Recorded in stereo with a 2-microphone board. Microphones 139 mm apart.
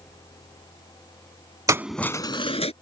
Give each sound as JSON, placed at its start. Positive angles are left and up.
{"t": 1.7, "sound": "keys jangling", "side_deg": -25}